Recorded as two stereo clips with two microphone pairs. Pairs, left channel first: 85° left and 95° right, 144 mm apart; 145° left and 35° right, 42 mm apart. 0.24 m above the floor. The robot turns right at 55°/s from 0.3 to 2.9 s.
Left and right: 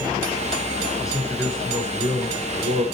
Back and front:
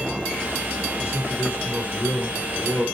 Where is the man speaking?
145° left, 3.5 m; by 2.9 s 115° right, 3.5 m.